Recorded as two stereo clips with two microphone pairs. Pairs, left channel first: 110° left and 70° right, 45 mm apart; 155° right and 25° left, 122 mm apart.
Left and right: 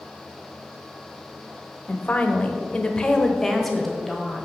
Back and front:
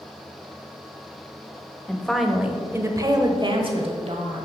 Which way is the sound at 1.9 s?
135° left.